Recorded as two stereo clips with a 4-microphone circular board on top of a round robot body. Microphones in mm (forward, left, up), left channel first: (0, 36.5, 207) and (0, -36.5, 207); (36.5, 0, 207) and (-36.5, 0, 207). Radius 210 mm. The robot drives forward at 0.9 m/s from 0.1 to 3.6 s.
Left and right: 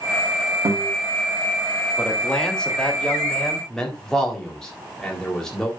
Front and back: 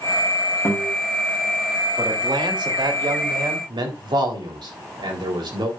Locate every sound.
0.7 s a guitar: 55° right, 3.5 m; by 0.9 s 60° right, 3.5 m
2.0 s a man speaking: 165° left, 2.5 m; by 5.7 s 170° left, 4 m